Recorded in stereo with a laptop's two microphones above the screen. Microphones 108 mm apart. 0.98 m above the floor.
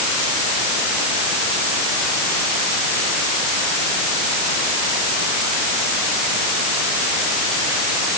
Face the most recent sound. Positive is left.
No sound to turn to.